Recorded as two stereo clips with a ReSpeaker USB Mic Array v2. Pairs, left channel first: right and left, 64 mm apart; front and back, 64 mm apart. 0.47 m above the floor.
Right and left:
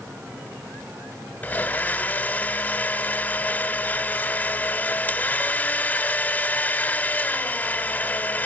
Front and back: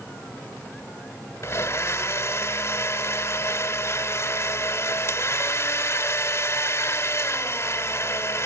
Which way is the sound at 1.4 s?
35° right.